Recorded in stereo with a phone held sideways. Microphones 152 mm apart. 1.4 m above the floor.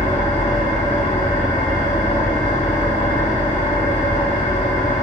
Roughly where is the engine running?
Left.